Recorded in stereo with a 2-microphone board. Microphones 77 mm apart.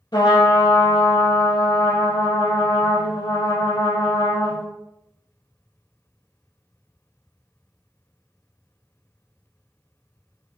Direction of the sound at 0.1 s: 80° left.